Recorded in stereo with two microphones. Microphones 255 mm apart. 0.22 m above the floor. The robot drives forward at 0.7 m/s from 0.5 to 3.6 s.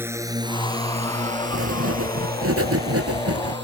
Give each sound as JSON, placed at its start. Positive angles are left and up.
{"t": 0.0, "sound": "a drone", "side_deg": -10}
{"t": 1.5, "sound": "writing", "side_deg": -65}